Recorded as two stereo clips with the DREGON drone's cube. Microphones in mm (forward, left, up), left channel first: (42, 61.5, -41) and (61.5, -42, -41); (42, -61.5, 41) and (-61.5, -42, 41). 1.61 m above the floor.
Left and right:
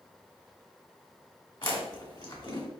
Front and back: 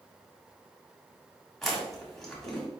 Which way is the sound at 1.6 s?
75° left.